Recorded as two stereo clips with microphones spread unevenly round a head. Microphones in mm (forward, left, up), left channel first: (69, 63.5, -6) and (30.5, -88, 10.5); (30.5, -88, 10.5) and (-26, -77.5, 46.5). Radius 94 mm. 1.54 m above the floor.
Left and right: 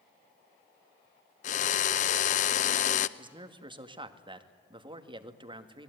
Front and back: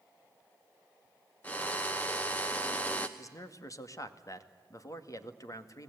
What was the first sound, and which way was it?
A drill, 100° left.